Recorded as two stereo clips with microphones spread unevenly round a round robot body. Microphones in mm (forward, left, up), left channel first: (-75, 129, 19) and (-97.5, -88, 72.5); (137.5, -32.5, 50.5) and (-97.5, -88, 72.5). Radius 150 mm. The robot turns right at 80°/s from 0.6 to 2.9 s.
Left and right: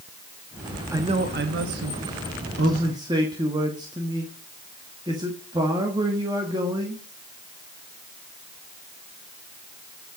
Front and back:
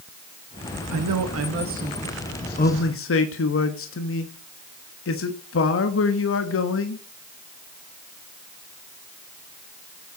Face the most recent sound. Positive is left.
turn(degrees=-20)